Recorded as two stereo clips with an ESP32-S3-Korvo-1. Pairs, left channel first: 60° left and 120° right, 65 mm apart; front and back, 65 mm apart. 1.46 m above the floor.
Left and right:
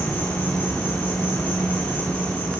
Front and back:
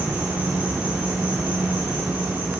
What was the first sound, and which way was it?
An insect, 115° left.